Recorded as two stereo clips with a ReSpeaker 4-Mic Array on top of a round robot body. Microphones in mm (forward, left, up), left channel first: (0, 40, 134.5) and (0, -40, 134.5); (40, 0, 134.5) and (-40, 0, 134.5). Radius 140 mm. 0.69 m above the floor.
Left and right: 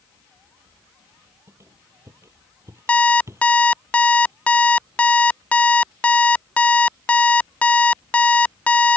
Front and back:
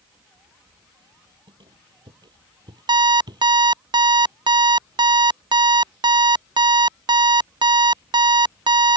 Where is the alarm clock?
165° left.